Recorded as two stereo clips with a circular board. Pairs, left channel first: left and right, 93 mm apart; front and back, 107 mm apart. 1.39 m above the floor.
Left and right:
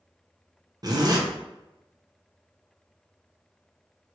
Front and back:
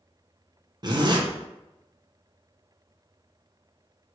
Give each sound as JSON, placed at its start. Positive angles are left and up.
{"t": 0.8, "sound": "a zipper", "azimuth_deg": -130, "distance_m": 0.6}